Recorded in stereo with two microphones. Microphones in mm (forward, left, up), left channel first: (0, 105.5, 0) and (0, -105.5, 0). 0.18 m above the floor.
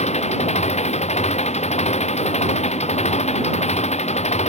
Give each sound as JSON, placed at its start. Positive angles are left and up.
{"t": 0.0, "sound": "an engine running", "side_deg": 30}